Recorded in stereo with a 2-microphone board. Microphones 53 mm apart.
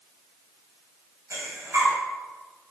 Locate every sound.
1.3 s breathing: 65° right (ahead or behind), 4 m